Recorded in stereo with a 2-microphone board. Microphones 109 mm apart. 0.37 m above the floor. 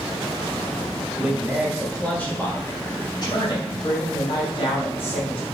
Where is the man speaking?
15° right (ahead or behind), 1.6 m; by 5.5 s 60° left (ahead or behind), 3.5 m.